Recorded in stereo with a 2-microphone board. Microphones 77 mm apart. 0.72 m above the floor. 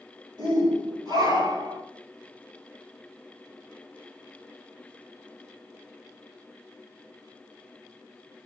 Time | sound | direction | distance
0.4 | a shout | 75° right (ahead or behind) | 5 m